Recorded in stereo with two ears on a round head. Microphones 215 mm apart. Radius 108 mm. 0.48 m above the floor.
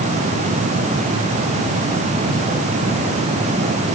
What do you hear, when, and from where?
Only background noise.